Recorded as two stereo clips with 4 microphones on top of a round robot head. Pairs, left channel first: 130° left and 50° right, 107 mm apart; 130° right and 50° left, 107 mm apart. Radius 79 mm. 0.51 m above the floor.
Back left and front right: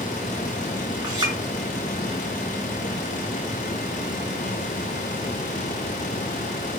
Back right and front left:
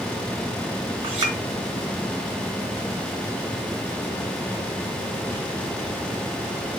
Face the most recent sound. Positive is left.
turn(degrees=10)